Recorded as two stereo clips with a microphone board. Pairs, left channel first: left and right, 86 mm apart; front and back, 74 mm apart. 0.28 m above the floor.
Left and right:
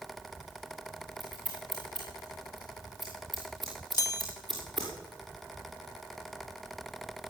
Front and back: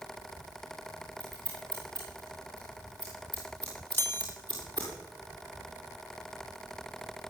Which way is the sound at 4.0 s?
60° left.